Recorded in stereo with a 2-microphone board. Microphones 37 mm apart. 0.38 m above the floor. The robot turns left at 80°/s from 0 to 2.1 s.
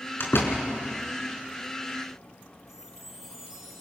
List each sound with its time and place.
0.2 s a door slam: 75° left (ahead or behind), 4 m; by 0.6 s 60° left (ahead or behind), 4 m
2.7 s a chime: 15° right (ahead or behind), 5 m